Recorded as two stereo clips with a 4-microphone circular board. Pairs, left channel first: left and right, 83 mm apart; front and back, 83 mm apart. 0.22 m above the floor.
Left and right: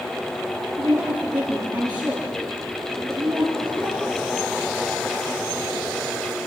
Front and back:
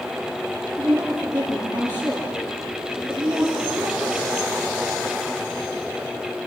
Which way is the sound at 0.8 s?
125° right.